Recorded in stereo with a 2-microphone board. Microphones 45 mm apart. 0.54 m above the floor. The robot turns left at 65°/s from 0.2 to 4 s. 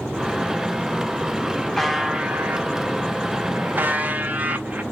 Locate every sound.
1.8 s a buzzer: 5° left, 0.7 m; by 4.8 s 140° right, 0.7 m